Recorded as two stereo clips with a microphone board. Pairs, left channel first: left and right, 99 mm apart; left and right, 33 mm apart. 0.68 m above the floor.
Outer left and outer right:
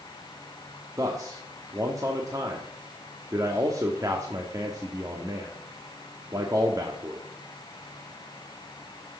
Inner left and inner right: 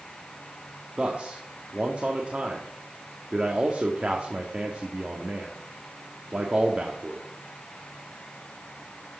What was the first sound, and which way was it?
A man speaking, 35° right (ahead or behind).